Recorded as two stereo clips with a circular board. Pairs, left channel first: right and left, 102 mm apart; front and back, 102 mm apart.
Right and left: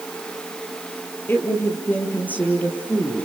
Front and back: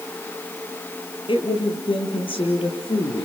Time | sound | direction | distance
1.3 | a woman speaking | 25° right | 5 m